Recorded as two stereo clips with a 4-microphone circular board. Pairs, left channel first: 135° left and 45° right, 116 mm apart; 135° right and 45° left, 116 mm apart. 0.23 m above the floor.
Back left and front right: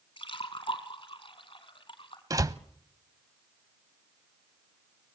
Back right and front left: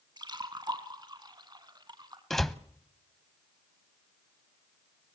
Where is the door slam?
50° right, 0.7 m.